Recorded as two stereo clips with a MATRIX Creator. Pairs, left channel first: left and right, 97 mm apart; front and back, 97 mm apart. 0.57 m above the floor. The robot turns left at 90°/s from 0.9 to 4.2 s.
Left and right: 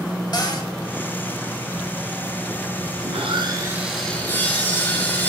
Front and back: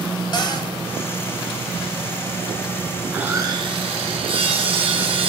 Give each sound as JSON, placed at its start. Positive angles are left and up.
{"t": 0.3, "sound": "a cupboard door", "azimuth_deg": 45, "distance_m": 1.2}
{"t": 3.0, "sound": "sawing", "azimuth_deg": -95, "distance_m": 1.9}